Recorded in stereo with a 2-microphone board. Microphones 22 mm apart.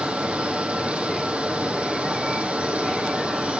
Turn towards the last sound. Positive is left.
turn(degrees=-65)  # may be behind; listen again after turning